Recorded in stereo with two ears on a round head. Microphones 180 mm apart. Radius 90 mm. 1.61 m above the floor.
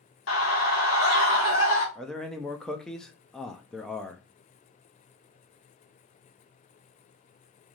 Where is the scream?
75° left (ahead or behind), 1.4 m.